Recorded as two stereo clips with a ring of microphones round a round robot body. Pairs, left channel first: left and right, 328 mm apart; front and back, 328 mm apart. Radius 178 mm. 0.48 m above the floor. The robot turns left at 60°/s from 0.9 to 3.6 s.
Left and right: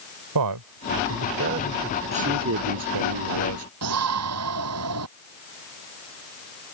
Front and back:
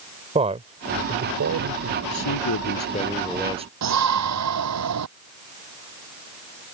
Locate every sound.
0.3 s a man speaking: 110° right; by 2.0 s 175° right
2.1 s a man speaking: 20° right; by 3.7 s 110° right
3.8 s a shout: 140° right